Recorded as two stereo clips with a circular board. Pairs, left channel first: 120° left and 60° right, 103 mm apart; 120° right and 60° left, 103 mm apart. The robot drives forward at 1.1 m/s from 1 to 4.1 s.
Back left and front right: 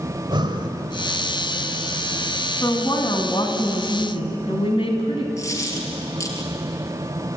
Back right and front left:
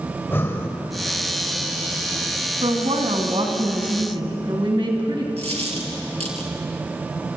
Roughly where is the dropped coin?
Ahead left.